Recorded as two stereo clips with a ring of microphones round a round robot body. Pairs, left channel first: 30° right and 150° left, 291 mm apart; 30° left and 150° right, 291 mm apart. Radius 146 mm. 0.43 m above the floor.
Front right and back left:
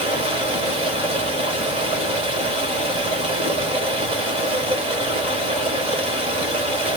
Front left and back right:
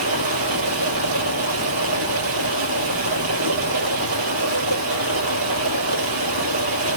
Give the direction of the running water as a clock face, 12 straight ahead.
5 o'clock.